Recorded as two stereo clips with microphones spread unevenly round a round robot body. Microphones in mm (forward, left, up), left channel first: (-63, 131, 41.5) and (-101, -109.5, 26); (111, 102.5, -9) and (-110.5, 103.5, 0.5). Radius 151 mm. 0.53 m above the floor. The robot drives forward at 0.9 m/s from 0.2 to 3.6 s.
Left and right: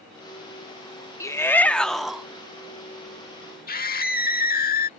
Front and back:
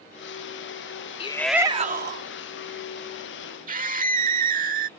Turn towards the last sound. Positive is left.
turn(degrees=130)